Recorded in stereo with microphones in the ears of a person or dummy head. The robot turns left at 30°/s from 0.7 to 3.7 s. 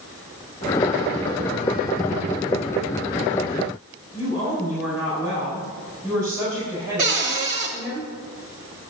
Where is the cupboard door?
40° right (ahead or behind), 1.6 m.